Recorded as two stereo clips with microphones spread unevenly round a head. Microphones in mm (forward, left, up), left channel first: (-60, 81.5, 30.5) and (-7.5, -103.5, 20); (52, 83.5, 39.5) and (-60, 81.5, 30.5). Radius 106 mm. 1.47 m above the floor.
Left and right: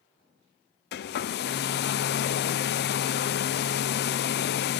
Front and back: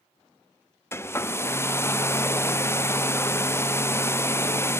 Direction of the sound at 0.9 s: 70° left.